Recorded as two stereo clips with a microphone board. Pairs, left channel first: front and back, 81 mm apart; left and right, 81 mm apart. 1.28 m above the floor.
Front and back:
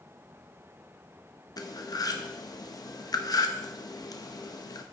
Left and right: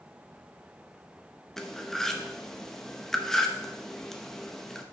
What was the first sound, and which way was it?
Cutlery clinking, 5° left.